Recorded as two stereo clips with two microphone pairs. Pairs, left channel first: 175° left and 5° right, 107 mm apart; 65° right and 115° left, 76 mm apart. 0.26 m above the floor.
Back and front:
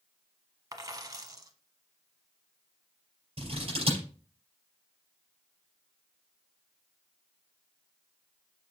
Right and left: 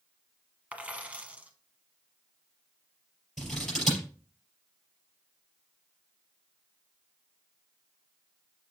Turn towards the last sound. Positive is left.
turn(degrees=20)